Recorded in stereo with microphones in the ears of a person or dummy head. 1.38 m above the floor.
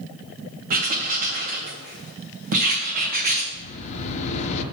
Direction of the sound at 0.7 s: 50° right (ahead or behind).